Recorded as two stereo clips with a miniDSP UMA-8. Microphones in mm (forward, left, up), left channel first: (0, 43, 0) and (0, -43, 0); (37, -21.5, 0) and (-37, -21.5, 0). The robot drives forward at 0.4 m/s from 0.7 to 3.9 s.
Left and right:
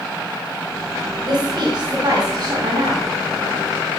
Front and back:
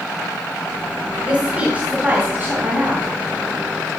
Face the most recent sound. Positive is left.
turn(degrees=-135)